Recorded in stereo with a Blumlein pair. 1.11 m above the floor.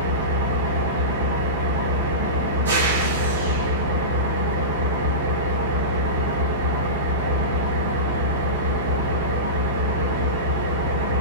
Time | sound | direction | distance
0.0 | an engine running | 65° right | 1.2 m